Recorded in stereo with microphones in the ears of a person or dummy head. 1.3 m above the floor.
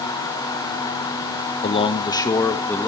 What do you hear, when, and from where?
1.6 s a man speaking: 30° left (ahead or behind), 1.3 m; by 2.9 s 5° left (ahead or behind), 2 m